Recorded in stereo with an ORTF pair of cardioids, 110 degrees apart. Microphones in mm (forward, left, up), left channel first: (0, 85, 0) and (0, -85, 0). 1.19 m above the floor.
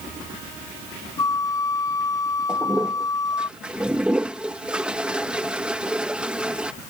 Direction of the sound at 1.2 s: 20° left.